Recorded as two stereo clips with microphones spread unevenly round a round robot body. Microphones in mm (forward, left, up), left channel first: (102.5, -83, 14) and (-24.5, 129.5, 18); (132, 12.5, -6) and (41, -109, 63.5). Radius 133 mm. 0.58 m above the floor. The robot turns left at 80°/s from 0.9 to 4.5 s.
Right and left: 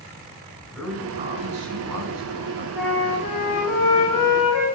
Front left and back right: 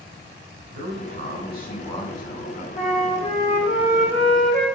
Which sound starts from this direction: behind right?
A man speaking, at 0.7 s.